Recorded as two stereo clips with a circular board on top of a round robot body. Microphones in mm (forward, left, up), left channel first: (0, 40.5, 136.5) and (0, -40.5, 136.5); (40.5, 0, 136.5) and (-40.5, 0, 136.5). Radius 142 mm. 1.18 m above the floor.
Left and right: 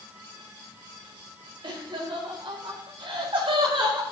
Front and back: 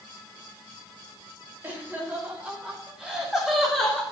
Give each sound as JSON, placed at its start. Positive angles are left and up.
{"t": 1.6, "sound": "laughter", "azimuth_deg": -115, "distance_m": 4.0}